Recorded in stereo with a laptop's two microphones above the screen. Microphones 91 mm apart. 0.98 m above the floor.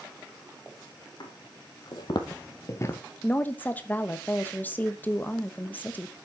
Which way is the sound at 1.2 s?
60° left (ahead or behind).